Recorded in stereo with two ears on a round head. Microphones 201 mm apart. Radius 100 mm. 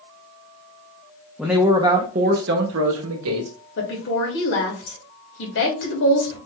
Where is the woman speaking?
60° left (ahead or behind), 2 m.